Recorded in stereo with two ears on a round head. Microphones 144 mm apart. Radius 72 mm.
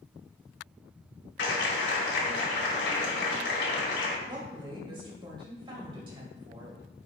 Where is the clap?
75° left (ahead or behind), 2.5 m.